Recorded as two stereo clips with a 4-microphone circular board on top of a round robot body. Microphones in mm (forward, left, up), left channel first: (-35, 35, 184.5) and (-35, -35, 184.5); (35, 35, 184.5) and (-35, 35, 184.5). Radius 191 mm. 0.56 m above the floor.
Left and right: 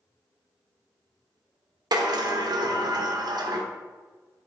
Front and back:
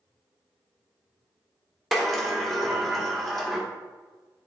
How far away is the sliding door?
About 1.1 m.